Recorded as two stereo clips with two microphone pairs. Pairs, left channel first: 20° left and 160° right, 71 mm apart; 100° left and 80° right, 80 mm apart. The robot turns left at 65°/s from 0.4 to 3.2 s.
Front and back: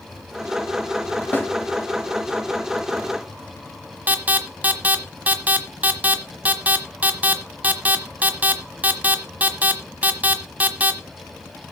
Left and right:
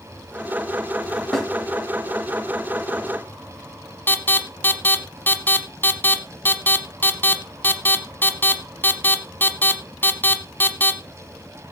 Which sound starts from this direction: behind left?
An alarm, at 4.1 s.